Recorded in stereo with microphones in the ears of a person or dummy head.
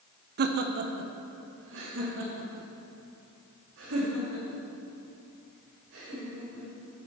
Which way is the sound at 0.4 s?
55° right (ahead or behind).